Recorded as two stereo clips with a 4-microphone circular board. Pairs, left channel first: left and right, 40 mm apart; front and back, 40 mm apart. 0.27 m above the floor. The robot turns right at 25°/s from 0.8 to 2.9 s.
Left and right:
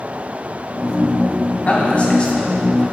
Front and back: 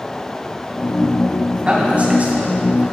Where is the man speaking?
130° left, 2 m; by 2.8 s 160° left, 2 m.